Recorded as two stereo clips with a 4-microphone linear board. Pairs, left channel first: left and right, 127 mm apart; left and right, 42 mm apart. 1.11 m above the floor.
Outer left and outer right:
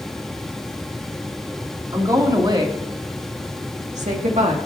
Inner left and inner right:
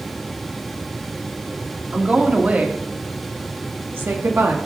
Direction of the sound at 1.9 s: 30° right (ahead or behind).